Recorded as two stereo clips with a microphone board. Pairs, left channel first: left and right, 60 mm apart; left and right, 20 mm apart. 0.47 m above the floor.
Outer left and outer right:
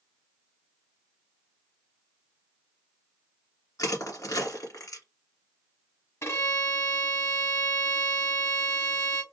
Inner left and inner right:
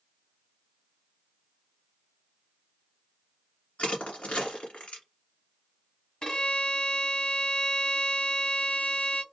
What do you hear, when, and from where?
3.8 s crushing: 90° left, 1.9 m
6.2 s a violin: 50° left (ahead or behind), 1.3 m